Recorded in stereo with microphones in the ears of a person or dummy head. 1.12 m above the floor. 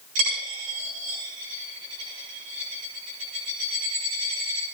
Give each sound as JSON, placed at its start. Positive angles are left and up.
{"t": 0.1, "sound": "a dropped coin", "side_deg": -75, "distance_m": 9.0}